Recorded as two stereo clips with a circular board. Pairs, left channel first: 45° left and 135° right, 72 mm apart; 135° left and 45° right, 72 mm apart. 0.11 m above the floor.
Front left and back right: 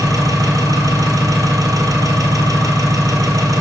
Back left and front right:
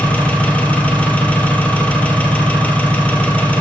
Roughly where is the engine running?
Behind right.